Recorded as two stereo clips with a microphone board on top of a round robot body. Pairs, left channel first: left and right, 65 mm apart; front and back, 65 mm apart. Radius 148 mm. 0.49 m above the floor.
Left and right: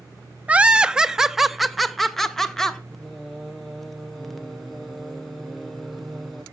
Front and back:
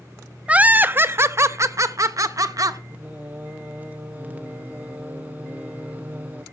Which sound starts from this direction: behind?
Singing, at 2.9 s.